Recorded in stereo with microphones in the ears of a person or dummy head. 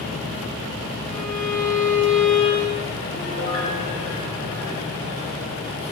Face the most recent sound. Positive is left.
turn(degrees=75)  # may be behind; listen again after turning